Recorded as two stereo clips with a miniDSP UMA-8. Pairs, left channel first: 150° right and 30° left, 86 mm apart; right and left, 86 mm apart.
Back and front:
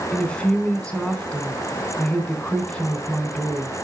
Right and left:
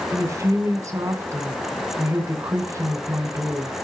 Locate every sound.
0.1 s a woman speaking: 135° left, 3 m